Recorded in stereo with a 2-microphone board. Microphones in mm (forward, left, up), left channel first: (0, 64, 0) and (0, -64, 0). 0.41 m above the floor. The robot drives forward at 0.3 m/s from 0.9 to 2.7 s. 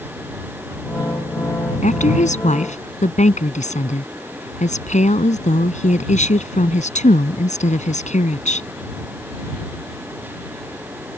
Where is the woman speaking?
70° left (ahead or behind).